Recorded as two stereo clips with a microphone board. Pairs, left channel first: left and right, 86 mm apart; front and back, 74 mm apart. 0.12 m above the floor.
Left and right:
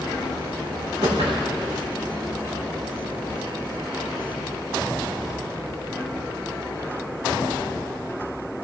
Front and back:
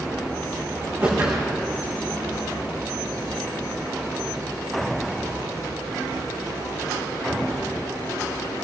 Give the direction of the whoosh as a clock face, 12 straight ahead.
4 o'clock.